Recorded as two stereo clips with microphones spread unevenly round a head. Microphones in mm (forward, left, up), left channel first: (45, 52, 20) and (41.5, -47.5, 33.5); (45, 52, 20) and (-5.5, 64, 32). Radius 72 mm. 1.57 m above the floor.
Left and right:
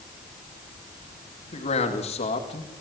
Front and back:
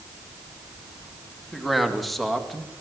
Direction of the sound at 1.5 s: 75° left.